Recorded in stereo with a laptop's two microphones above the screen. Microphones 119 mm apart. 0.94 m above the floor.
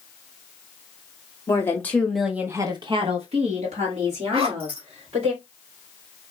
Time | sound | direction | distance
1.5 | a woman speaking | 25° left (ahead or behind) | 1.5 m
4.3 | a zipper | 55° right (ahead or behind) | 1.6 m